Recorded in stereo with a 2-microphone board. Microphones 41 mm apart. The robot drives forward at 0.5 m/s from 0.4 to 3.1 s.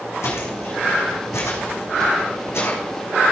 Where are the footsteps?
70° left (ahead or behind), 4 m; by 2.8 s 65° left (ahead or behind), 4 m.